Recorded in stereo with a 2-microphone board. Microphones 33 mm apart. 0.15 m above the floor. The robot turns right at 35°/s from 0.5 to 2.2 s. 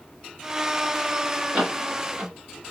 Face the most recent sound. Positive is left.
turn(degrees=-50)  # may be behind; listen again after turning